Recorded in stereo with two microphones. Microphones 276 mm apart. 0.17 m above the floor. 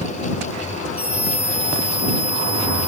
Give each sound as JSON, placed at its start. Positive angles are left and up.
{"t": 1.0, "sound": "a scream", "side_deg": -5}